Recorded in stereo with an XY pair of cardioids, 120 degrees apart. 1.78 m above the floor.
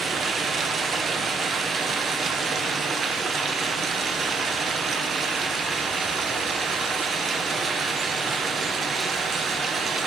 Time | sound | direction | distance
0.0 | running water | 40° right | 1.2 m